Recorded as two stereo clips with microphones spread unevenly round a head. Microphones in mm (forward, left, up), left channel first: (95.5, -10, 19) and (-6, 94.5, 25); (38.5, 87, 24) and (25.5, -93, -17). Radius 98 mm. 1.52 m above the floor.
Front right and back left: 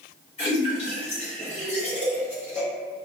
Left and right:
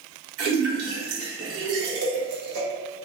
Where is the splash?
105° right, 0.8 m.